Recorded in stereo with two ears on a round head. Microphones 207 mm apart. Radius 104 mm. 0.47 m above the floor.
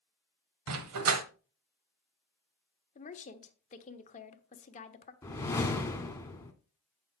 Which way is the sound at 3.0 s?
35° left (ahead or behind).